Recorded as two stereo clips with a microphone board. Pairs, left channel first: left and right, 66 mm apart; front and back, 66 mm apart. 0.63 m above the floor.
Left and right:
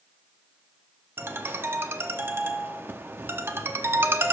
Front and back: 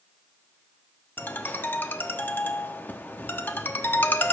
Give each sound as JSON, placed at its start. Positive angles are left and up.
{"t": 1.2, "sound": "a ringtone", "azimuth_deg": -50, "distance_m": 0.6}